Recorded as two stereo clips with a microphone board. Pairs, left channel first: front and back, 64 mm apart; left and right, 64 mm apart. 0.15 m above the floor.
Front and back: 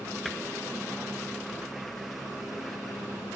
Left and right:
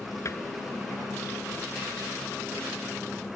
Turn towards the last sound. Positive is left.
turn(degrees=90)